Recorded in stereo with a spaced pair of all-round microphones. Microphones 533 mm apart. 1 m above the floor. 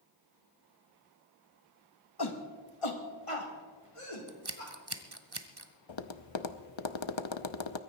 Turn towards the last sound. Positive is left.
turn(degrees=60)  # may be behind; listen again after turning